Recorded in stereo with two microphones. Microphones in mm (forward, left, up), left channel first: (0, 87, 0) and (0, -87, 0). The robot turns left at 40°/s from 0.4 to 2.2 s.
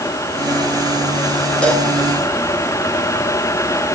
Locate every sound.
1.6 s a cowbell: 5° left (ahead or behind), 7 m; by 1.9 s 15° left (ahead or behind), 7 m